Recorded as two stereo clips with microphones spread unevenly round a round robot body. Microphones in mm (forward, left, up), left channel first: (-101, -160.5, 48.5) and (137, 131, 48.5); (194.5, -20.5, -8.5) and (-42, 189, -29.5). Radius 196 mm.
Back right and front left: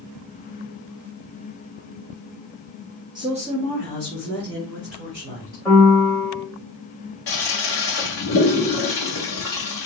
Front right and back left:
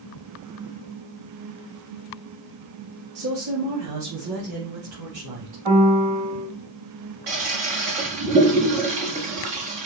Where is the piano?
145° left, 3 m.